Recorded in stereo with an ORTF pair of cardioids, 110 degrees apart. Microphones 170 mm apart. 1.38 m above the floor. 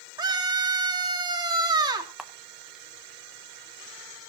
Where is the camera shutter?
5° right, 1.1 m.